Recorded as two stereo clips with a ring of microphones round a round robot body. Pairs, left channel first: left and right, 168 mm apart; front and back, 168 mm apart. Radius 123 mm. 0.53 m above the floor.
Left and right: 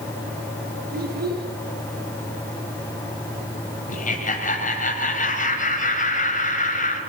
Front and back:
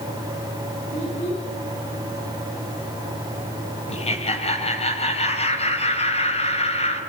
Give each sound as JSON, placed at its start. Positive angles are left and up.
{"t": 0.9, "sound": "a child speaking", "azimuth_deg": -65, "distance_m": 6.0}
{"t": 3.9, "sound": "laughter", "azimuth_deg": 50, "distance_m": 3.0}